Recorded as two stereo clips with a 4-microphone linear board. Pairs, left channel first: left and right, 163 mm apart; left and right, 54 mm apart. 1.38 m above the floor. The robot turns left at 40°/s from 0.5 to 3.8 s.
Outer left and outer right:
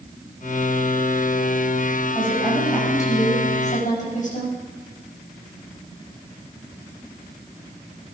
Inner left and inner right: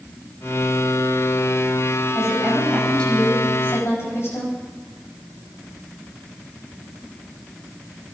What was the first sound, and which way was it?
A woman speaking, 165° right.